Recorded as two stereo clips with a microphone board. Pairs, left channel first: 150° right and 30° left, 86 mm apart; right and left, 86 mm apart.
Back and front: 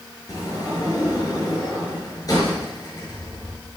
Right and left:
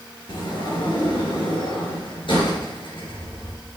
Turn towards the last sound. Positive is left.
turn(degrees=-105)